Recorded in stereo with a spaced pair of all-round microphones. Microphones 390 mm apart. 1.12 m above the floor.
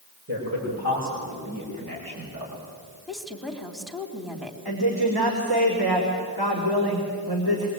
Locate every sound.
0.3 s a man speaking: 40° right (ahead or behind), 6.5 m; by 2.6 s 55° right (ahead or behind), 6 m
3.1 s a woman speaking: centre (ahead or behind), 3 m
4.7 s a woman speaking: 70° right (ahead or behind), 3.5 m